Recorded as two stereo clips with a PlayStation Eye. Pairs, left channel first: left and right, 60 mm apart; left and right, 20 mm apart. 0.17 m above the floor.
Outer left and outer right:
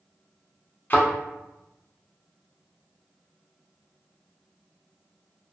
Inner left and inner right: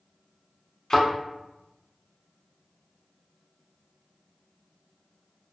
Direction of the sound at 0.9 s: 35° left (ahead or behind).